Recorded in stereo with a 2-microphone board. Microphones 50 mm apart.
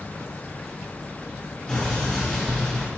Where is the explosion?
20° left (ahead or behind), 3 m.